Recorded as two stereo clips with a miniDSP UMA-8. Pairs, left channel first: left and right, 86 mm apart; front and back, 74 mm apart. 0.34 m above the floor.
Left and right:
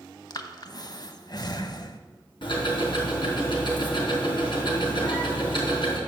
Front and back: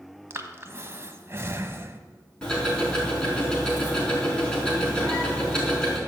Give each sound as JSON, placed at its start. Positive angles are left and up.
{"t": 0.3, "sound": "breathing", "azimuth_deg": 125, "distance_m": 0.8}
{"t": 2.4, "sound": "ticking", "azimuth_deg": 80, "distance_m": 4.0}